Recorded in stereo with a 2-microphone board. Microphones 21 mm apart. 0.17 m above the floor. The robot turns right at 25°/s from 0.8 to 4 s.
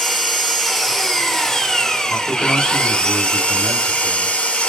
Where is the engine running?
5° left, 0.9 m; by 4.7 s 85° left, 0.9 m.